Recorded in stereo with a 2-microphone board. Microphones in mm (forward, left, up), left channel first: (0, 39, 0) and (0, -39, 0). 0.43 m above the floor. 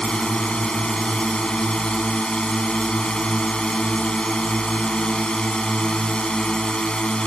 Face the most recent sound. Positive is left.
turn(degrees=10)  # may be behind; listen again after turning